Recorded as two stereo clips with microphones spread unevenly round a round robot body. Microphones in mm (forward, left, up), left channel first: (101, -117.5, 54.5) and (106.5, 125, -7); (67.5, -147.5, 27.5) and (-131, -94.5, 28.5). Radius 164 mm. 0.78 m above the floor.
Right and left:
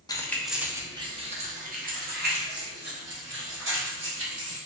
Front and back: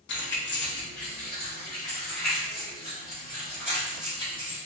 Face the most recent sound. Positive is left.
turn(degrees=60)